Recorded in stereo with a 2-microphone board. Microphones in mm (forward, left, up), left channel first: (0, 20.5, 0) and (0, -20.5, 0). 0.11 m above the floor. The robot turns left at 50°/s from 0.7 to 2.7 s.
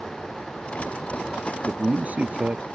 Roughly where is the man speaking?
Right.